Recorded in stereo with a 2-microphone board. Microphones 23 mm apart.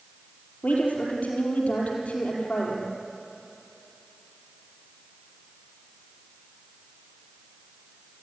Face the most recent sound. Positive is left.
turn(degrees=75)  # may be behind; listen again after turning